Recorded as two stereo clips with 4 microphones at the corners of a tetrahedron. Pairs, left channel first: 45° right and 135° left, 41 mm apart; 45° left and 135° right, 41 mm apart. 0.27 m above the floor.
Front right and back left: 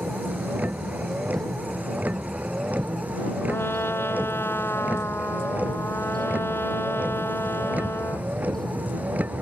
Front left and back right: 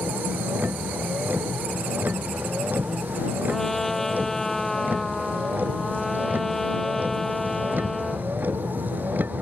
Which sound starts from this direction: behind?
A vehicle, at 0.0 s.